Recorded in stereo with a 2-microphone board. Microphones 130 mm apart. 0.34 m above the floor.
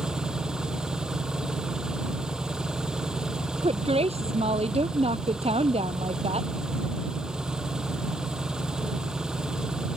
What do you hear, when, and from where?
0.0 s an engine running: 5° right (ahead or behind)
3.6 s a woman speaking: 50° right (ahead or behind)